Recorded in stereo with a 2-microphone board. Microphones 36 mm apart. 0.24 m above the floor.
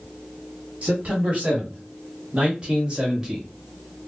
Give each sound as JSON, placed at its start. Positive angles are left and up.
{"t": 0.8, "sound": "a man speaking", "side_deg": -45, "distance_m": 1.7}